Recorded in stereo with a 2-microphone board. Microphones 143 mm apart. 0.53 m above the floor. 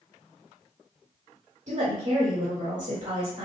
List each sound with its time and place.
1.7 s a woman speaking: 55° right (ahead or behind), 2 m